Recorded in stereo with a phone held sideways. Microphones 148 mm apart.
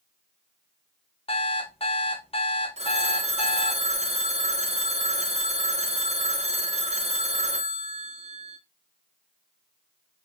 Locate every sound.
1.3 s an alarm clock: 40° left (ahead or behind), 0.8 m
2.8 s a phone ringing: 45° right (ahead or behind), 0.5 m